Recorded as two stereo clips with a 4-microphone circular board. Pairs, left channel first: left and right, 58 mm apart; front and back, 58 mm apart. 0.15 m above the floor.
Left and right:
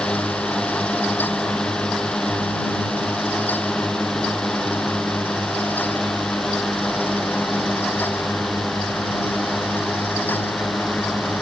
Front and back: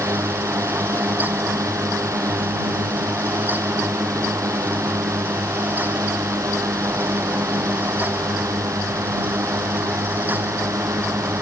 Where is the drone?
165° left; by 11.4 s straight behind.